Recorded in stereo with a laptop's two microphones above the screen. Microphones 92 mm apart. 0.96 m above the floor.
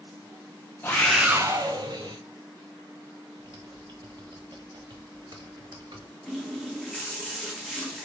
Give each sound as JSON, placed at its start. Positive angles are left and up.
{"t": 0.8, "sound": "a scream", "side_deg": 25, "distance_m": 0.9}
{"t": 3.4, "sound": "typing on a keyboard", "side_deg": -60, "distance_m": 1.2}
{"t": 6.3, "sound": "a running tap", "side_deg": 0, "distance_m": 0.9}